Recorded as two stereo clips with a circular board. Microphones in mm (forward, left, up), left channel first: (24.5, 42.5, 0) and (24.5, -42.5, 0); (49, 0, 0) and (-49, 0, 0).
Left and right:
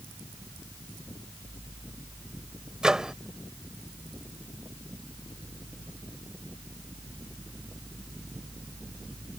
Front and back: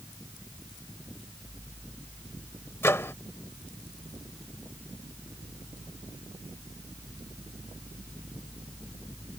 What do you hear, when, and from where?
2.8 s a microwave: 20° right